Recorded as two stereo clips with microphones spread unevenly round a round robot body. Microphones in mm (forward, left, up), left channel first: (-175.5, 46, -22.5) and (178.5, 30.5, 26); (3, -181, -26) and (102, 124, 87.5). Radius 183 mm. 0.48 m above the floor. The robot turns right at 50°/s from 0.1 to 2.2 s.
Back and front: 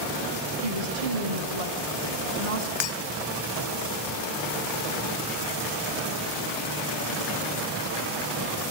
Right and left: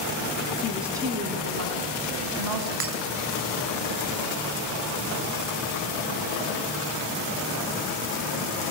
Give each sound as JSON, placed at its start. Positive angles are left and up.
{"t": 0.6, "sound": "a woman speaking", "azimuth_deg": -30, "distance_m": 5.0}
{"t": 2.8, "sound": "breaking glass", "azimuth_deg": 135, "distance_m": 2.5}